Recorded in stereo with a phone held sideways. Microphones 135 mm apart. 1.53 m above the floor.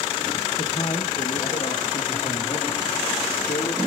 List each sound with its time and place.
0.6 s a man speaking: 40° left (ahead or behind), 1.2 m; by 3.8 s 65° left (ahead or behind), 3 m